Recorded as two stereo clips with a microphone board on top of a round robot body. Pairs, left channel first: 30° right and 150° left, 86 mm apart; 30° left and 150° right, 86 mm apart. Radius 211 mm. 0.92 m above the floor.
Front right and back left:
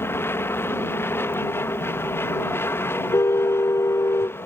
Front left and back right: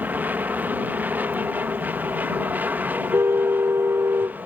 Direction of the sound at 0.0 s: 85° right.